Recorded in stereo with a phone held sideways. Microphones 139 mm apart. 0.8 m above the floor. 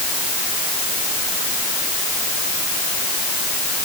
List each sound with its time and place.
Only background noise.